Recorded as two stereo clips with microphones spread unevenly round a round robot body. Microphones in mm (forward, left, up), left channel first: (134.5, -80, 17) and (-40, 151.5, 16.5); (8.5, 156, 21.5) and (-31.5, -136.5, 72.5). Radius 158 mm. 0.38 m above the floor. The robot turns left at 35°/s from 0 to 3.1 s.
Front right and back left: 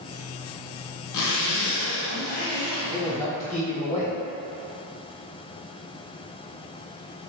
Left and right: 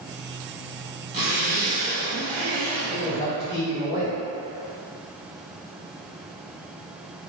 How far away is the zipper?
About 0.7 m.